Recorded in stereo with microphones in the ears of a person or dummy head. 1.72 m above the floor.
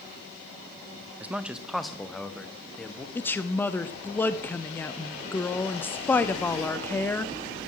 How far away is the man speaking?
About 0.5 m.